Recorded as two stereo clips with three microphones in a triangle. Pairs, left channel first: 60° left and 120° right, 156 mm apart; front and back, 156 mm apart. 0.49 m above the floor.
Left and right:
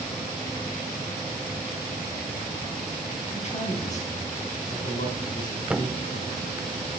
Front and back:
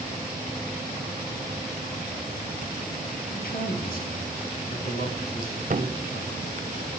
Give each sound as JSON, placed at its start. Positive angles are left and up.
{"t": 3.3, "sound": "a man speaking", "azimuth_deg": 15, "distance_m": 4.5}
{"t": 5.7, "sound": "a thud", "azimuth_deg": 155, "distance_m": 0.5}